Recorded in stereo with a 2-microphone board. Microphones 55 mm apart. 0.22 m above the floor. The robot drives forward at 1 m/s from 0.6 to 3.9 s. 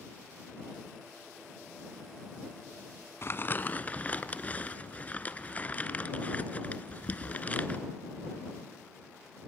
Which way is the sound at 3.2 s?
50° left (ahead or behind).